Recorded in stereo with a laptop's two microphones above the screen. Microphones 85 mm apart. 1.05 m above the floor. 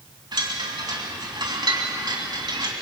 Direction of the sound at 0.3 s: 60° right (ahead or behind).